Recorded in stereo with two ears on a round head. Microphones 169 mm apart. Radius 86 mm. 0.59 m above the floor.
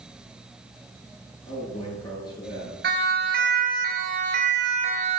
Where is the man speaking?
25° left (ahead or behind), 8.5 m.